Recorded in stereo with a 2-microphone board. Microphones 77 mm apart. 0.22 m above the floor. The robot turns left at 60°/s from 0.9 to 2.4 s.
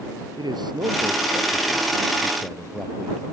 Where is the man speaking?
95° right; by 3.2 s 175° left.